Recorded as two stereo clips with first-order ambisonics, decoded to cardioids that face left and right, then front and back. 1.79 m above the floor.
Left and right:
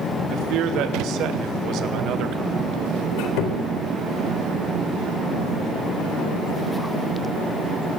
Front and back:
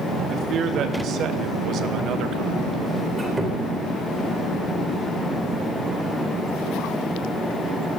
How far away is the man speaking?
About 3 m.